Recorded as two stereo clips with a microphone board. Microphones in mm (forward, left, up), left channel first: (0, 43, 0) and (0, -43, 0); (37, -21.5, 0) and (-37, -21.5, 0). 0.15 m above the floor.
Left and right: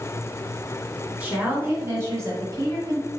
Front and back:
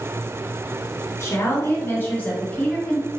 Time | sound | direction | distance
1.2 | a woman speaking | 25° right | 1.6 m